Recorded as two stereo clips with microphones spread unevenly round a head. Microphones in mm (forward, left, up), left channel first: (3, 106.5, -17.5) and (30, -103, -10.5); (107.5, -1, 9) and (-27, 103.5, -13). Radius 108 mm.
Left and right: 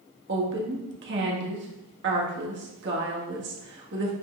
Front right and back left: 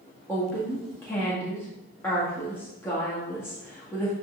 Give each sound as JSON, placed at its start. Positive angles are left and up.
{"t": 0.3, "sound": "a woman speaking", "azimuth_deg": -120, "distance_m": 1.7}